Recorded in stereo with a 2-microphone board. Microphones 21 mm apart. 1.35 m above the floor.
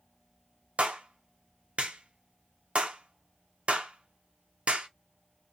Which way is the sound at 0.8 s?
70° right (ahead or behind).